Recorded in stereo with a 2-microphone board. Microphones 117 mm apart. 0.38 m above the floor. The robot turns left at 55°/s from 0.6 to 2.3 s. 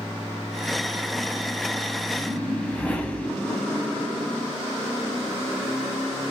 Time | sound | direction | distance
2.2 | a whoosh | 20° left (ahead or behind) | 0.8 m